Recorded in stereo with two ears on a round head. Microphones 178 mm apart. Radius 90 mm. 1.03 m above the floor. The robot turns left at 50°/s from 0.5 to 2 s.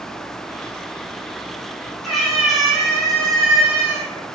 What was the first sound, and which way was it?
A cat meowing, centre (ahead or behind).